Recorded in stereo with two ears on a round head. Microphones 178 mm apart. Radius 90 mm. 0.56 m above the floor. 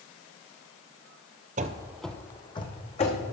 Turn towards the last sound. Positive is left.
turn(degrees=35)  # may be behind; listen again after turning